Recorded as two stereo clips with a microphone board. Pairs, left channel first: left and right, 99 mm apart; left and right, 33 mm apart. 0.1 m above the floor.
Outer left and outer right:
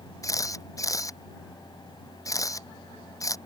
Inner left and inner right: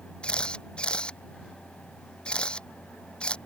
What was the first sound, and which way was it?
A camera shutter, 35° left (ahead or behind).